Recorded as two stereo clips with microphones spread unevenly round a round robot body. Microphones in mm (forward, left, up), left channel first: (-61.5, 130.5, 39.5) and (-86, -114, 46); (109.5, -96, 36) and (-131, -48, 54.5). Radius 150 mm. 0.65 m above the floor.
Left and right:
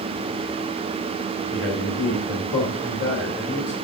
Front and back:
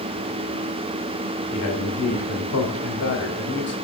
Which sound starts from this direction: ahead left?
A man speaking, at 1.5 s.